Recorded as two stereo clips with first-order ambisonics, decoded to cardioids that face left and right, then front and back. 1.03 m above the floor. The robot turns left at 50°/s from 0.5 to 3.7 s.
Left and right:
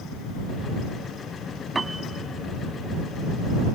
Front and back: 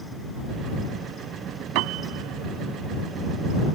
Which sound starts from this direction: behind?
A piano, at 1.8 s.